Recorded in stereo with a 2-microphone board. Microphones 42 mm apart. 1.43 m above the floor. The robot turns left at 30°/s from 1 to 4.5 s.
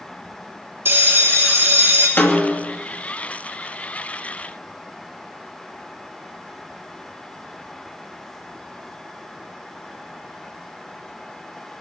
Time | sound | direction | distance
0.8 | a bell | 70° right | 3 m
2.2 | a snare drum | 60° left (ahead or behind) | 2.5 m